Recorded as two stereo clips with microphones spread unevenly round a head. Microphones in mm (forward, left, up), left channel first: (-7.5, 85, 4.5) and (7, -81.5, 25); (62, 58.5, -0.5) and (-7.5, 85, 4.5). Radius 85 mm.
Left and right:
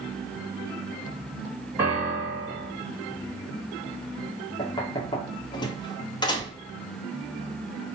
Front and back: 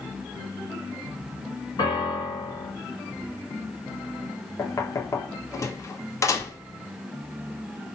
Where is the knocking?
30° left, 0.7 m.